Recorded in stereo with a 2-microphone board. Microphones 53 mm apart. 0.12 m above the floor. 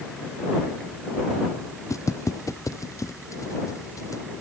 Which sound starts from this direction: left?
Footsteps, at 1.9 s.